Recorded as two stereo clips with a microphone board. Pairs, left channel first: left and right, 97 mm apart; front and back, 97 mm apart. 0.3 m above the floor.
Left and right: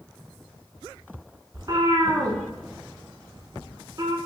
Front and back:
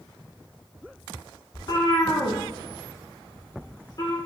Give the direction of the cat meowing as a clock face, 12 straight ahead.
1 o'clock.